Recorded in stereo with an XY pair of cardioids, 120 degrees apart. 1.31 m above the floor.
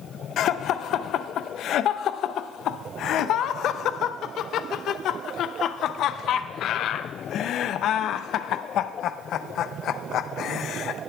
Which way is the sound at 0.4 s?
65° left.